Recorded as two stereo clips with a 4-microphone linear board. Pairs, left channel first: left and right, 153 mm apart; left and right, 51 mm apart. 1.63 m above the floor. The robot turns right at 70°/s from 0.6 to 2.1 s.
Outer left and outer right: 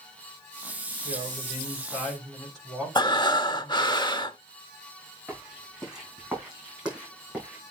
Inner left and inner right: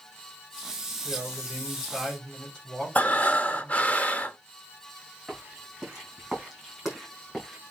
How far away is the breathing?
About 0.7 m.